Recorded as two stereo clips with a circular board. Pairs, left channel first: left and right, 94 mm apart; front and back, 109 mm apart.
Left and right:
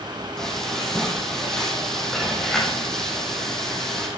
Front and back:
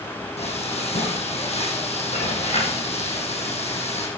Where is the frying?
5° left, 4.5 m.